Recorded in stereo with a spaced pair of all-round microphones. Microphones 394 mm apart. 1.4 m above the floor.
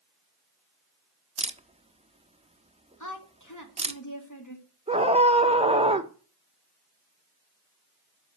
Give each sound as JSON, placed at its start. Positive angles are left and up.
{"t": 1.4, "sound": "a camera shutter", "side_deg": -15, "distance_m": 0.9}
{"t": 3.0, "sound": "a woman speaking", "side_deg": 45, "distance_m": 2.5}
{"t": 4.9, "sound": "a scream", "side_deg": -15, "distance_m": 1.3}